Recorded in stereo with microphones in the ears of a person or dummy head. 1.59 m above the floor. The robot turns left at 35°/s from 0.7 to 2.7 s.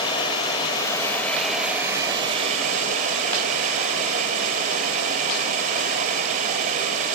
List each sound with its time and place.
0.0 s running water: 25° left, 3.5 m; by 7.2 s 45° right, 3.5 m